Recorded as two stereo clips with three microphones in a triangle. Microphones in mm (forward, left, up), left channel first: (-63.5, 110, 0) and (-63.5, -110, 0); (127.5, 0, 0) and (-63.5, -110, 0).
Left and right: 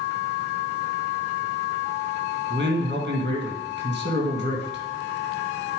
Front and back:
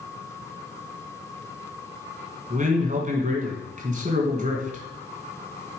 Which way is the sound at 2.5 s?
105° right.